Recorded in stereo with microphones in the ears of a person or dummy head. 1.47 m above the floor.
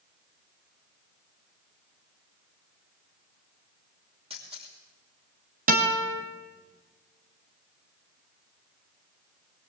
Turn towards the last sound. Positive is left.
turn(degrees=-40)  # may be behind; listen again after turning